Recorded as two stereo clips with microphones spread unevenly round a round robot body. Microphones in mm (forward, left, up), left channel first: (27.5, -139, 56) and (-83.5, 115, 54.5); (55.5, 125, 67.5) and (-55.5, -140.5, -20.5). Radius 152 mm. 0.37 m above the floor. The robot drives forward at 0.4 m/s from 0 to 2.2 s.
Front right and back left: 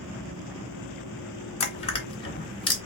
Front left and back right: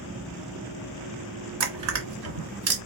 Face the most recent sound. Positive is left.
turn(degrees=-135)